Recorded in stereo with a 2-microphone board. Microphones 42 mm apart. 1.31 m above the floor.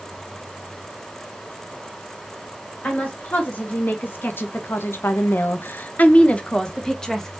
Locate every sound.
2.8 s a woman speaking: 45° left (ahead or behind), 1.7 m; by 7.4 s 5° left (ahead or behind), 1.3 m